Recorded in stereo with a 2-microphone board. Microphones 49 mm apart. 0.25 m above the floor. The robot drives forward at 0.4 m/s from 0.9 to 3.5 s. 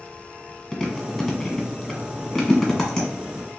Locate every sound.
0.7 s chewing: 5° left (ahead or behind), 1.1 m